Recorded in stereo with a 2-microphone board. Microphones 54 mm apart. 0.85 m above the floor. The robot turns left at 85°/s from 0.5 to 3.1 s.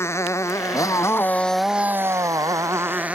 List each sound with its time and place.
0.0 s a motorcycle: 55° left (ahead or behind); by 3.2 s 25° right (ahead or behind)